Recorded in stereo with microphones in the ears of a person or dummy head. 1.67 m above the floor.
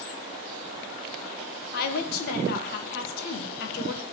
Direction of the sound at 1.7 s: 60° left (ahead or behind).